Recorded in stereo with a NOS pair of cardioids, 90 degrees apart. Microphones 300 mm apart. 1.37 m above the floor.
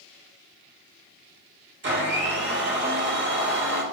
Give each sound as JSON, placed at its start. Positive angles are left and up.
{"t": 1.8, "sound": "a blender", "azimuth_deg": -40, "distance_m": 1.0}